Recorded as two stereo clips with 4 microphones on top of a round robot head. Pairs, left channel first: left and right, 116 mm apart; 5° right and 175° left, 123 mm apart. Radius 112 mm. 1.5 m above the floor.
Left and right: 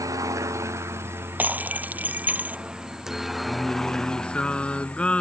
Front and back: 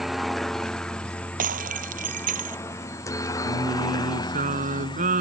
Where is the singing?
170° left.